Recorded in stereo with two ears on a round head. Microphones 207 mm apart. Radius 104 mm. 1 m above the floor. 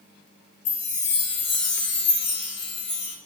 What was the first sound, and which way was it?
A chime, 55° left (ahead or behind).